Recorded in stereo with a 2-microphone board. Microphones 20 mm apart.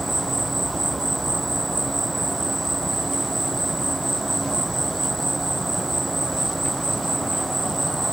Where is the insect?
10° left (ahead or behind).